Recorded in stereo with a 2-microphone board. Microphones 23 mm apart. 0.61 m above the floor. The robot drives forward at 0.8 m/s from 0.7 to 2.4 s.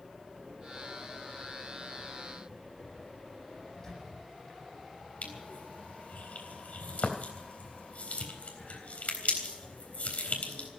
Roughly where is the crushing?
Left.